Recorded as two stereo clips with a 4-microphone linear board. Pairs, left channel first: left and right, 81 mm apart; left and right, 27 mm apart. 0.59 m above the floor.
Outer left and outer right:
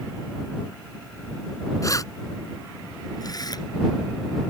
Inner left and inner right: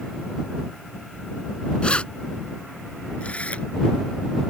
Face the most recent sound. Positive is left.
turn(degrees=55)  # may be behind; listen again after turning